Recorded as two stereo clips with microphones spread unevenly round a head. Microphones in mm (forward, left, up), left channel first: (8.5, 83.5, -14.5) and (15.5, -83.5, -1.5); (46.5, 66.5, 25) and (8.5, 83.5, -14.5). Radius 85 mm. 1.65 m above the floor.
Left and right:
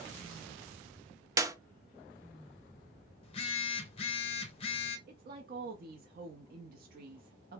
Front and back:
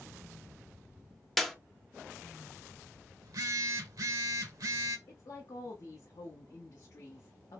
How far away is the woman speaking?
About 0.6 m.